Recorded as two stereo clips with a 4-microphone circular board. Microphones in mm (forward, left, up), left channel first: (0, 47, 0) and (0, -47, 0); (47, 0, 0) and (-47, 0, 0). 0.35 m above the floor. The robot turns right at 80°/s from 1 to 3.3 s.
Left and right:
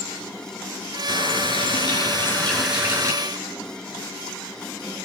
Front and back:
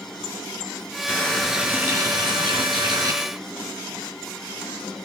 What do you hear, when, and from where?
1.1 s a running tap: 55° left, 3.5 m; by 3.1 s 140° right, 3.5 m